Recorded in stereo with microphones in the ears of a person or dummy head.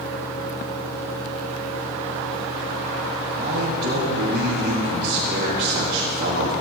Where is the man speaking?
50° right (ahead or behind), 4 m.